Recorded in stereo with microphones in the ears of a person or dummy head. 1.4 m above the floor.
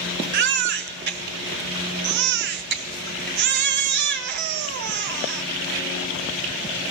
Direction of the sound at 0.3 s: 55° right (ahead or behind).